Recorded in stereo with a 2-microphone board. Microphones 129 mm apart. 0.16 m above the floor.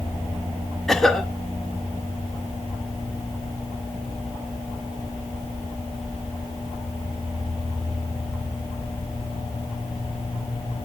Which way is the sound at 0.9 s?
5° left (ahead or behind).